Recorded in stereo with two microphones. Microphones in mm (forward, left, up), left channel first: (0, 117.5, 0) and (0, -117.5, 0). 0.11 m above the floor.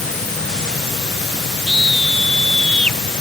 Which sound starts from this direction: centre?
A scream, at 1.7 s.